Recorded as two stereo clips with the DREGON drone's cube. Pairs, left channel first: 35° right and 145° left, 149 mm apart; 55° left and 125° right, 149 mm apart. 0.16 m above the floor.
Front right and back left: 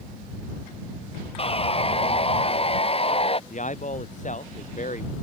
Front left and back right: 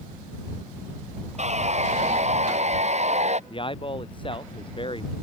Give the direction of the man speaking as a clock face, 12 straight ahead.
12 o'clock.